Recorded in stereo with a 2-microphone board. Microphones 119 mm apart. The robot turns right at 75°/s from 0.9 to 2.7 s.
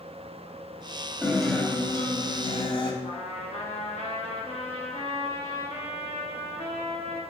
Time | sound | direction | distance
1.2 | a guitar | 15° right | 1.8 m
3.0 | a trumpet | 65° left (ahead or behind) | 3 m